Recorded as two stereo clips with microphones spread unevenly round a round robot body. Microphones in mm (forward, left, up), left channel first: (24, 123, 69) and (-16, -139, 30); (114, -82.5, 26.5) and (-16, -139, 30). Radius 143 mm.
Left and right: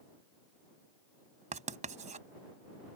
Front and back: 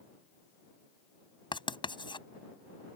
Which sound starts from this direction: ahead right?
Writing, at 1.5 s.